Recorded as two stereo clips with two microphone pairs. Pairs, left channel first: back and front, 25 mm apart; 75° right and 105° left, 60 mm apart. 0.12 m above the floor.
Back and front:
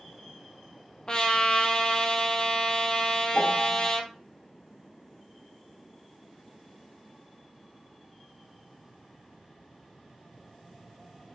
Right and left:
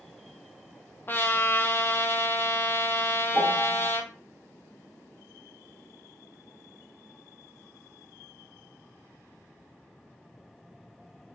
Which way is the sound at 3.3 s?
145° left.